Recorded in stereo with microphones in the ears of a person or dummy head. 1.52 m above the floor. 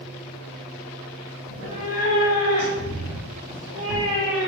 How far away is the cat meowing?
About 1.2 m.